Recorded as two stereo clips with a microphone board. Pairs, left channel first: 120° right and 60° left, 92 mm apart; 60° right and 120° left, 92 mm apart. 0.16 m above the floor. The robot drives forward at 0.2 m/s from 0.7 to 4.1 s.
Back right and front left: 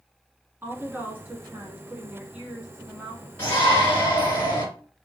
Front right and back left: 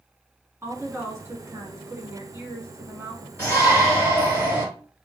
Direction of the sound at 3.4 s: 170° left.